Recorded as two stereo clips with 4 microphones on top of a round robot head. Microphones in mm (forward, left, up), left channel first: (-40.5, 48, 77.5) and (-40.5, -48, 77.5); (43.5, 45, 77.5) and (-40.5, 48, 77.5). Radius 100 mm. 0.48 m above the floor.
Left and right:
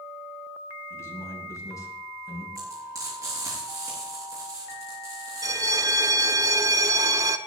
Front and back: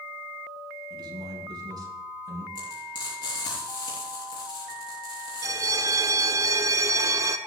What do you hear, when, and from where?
0.9 s a man speaking: 150° left, 5 m; by 2.5 s 140° left, 5.5 m
2.5 s frying: 35° right, 7.5 m
5.4 s a bell: 135° right, 1.1 m